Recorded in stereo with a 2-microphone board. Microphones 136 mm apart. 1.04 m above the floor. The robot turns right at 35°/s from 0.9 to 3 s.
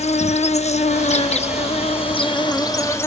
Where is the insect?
80° left, 0.7 m; by 3.1 s 155° left, 0.7 m.